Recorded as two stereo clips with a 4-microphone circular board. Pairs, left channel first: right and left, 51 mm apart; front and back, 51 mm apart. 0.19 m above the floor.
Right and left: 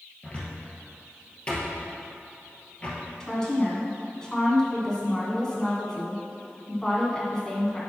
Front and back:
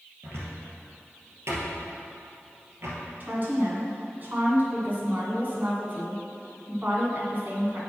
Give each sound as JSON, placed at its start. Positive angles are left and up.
{"t": 0.2, "sound": "a cupboard door", "azimuth_deg": -155, "distance_m": 2.0}
{"t": 3.2, "sound": "a woman speaking", "azimuth_deg": -160, "distance_m": 2.0}